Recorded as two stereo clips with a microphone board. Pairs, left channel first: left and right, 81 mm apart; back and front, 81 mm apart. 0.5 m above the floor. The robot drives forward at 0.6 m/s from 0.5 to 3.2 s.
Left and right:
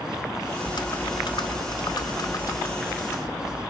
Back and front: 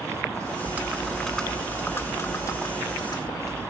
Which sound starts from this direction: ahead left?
Typing on a keyboard, at 0.6 s.